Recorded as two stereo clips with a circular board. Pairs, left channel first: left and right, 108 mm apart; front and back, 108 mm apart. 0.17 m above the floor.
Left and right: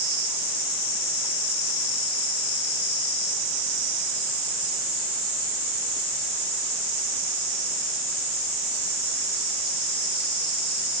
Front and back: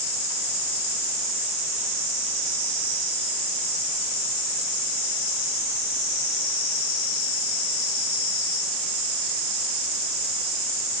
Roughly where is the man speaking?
I don't hear a man speaking.